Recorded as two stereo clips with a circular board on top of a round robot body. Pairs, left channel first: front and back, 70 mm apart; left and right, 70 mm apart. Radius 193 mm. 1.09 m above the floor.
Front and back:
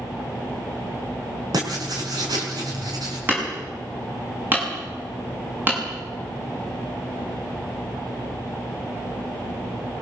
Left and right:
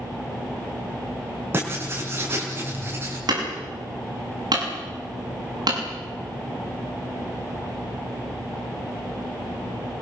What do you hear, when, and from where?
1.5 s writing: 150° right, 4.5 m
3.3 s hammering: 115° right, 6.5 m